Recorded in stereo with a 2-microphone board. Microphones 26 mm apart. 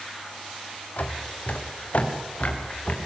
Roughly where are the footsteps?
Left.